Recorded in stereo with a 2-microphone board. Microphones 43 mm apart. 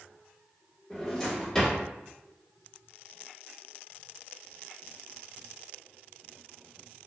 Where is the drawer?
10° left (ahead or behind), 1.1 m.